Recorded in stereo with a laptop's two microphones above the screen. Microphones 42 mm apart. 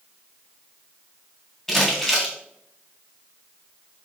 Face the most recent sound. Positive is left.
turn(degrees=10)  # may be behind; listen again after turning